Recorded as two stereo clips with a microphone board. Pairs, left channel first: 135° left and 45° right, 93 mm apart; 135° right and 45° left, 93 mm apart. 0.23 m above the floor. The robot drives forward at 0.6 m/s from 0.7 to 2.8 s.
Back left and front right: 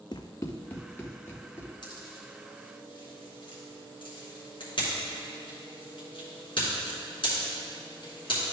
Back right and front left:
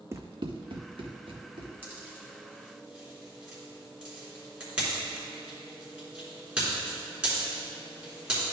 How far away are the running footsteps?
About 0.6 m.